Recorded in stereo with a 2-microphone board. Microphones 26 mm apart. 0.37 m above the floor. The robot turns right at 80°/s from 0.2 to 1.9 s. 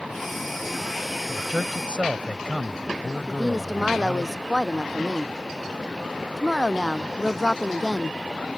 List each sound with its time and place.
1.3 s a man speaking: 100° right; by 4.3 s 50° right
3.3 s a woman speaking: 10° right (ahead or behind)